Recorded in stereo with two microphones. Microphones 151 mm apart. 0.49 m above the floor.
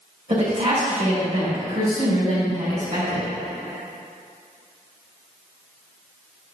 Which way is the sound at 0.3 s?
50° right (ahead or behind).